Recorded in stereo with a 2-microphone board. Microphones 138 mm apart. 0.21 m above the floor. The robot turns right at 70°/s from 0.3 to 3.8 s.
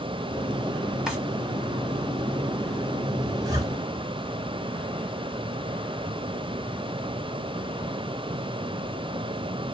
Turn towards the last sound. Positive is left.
turn(degrees=-20)  # may be behind; listen again after turning